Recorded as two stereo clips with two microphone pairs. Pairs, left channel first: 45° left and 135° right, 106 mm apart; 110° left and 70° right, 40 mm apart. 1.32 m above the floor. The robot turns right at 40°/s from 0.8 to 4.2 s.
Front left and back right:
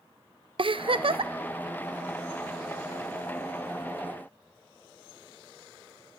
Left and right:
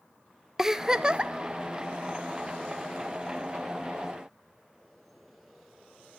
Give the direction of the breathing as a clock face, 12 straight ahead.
No breathing in this recording.